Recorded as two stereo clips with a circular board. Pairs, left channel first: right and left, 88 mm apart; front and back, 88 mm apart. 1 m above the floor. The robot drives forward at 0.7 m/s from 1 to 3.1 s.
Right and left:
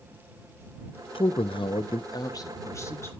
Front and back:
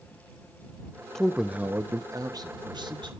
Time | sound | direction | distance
1.1 | a man speaking | 85° right | 0.7 m